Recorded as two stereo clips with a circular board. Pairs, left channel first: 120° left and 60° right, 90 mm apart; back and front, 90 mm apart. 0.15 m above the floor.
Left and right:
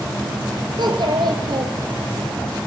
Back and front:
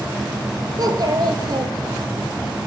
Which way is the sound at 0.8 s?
35° right.